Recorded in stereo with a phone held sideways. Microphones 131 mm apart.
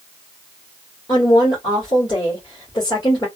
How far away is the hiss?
I don't hear a hiss.